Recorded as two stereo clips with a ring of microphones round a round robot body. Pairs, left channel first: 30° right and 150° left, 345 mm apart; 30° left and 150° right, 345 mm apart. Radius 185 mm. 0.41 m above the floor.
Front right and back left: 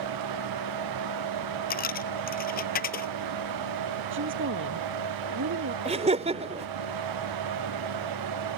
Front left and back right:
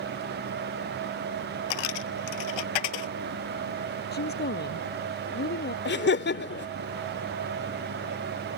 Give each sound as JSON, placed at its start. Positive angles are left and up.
{"t": 1.7, "sound": "a dropped coin", "azimuth_deg": 35}
{"t": 4.1, "sound": "a woman speaking", "azimuth_deg": 95}
{"t": 5.8, "sound": "laughter", "azimuth_deg": 80}